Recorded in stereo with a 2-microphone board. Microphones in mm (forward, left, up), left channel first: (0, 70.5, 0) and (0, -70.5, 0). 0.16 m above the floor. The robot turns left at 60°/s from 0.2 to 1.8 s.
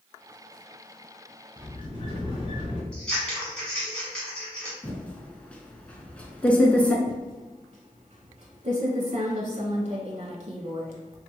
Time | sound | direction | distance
1.6 | a sliding door | 35° left (ahead or behind) | 1.1 m
2.9 | scissors | 5° left (ahead or behind) | 1.5 m
4.8 | typing on a keyboard | 10° left (ahead or behind) | 0.5 m
7.0 | typing on a keyboard | 50° right (ahead or behind) | 0.5 m